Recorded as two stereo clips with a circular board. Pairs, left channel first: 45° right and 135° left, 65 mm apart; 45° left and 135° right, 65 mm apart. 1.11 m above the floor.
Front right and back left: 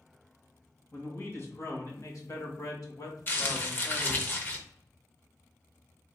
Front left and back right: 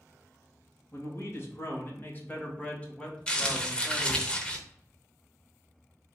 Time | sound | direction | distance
0.9 | a man speaking | 5° left | 2 m
3.3 | crumpling | 15° right | 0.9 m